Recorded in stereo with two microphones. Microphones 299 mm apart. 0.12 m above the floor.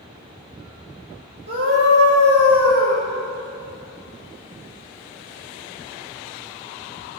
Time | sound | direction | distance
1.5 | a scream | 50° right (ahead or behind) | 2.5 m